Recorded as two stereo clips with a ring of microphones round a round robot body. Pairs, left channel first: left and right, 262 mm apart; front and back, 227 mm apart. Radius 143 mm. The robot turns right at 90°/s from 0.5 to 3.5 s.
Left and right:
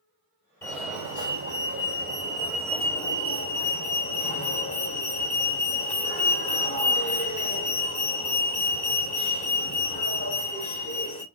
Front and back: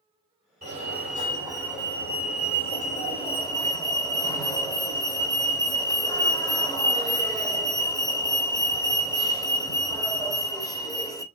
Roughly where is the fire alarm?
Behind.